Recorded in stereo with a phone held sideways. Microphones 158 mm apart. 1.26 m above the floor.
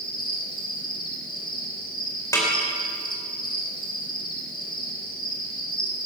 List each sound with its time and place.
0.0 s an insect: 60° left (ahead or behind), 2.5 m
2.3 s a snare drum: 20° left (ahead or behind), 4 m